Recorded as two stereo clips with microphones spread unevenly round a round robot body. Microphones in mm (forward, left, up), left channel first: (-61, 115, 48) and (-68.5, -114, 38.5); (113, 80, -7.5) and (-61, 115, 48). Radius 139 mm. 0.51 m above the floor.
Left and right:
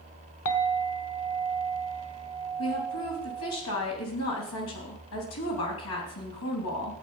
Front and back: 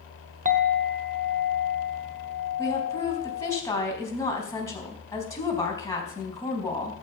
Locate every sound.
0.5 s a clink: 115° left, 1.2 m
2.6 s a woman speaking: 55° left, 3.5 m